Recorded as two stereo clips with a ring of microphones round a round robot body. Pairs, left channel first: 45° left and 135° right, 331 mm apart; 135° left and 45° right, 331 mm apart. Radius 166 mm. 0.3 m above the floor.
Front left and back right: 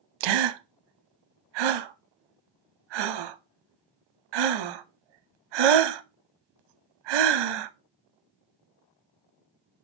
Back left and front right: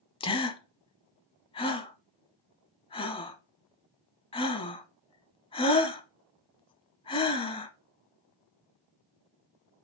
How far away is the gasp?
About 0.6 m.